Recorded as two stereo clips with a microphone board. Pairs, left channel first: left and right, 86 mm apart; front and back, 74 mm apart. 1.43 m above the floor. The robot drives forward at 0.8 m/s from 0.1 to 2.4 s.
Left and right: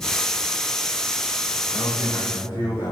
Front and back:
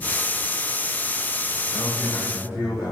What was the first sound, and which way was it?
A man speaking, 110° left.